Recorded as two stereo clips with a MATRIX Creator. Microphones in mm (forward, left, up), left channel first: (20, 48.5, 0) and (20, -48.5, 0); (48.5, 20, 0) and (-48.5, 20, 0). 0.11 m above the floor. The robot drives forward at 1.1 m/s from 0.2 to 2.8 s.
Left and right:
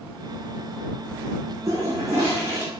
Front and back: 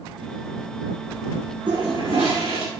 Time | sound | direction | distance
1.7 | a toilet flushing | 145° right | 4.5 m